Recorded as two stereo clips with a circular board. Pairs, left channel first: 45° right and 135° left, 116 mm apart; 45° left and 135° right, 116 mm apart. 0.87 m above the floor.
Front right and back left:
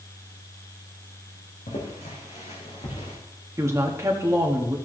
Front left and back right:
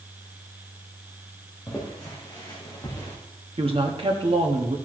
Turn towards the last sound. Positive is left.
turn(degrees=-165)